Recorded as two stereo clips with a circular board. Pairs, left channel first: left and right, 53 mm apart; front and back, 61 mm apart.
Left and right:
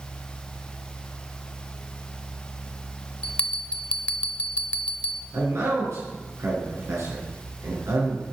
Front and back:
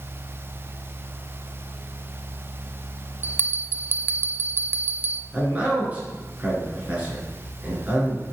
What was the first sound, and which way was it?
A bell, 150° left.